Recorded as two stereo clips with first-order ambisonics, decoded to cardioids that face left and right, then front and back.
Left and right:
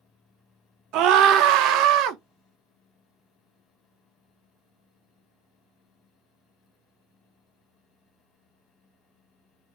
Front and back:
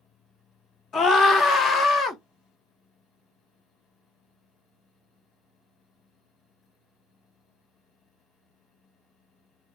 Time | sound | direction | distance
0.9 | a scream | 65° right | 0.7 m